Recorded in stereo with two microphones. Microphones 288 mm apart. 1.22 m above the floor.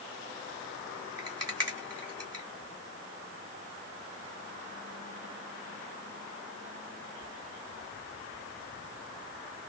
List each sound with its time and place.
1.2 s a rattle: 60° right (ahead or behind), 1.8 m